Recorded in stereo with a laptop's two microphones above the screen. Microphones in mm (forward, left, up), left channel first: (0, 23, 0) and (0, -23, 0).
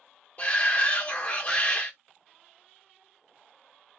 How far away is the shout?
About 0.6 m.